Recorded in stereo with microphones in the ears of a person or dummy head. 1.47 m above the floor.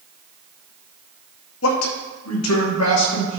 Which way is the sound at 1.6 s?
70° left (ahead or behind).